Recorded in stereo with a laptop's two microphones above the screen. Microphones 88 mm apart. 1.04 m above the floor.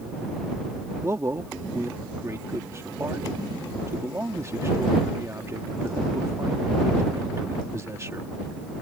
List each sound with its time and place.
1.0 s a man speaking: 30° right (ahead or behind)